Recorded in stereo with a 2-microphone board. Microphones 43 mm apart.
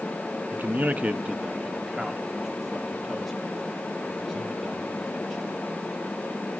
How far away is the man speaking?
About 0.7 m.